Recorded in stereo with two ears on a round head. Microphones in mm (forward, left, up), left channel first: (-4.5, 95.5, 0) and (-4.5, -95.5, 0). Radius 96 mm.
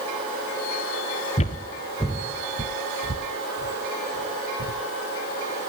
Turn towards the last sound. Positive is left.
turn(degrees=-65)  # may be behind; listen again after turning